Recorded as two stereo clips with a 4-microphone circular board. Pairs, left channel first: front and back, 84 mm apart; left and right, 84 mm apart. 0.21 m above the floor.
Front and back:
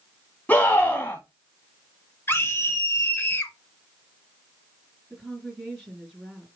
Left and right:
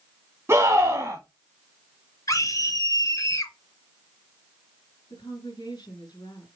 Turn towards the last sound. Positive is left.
turn(degrees=105)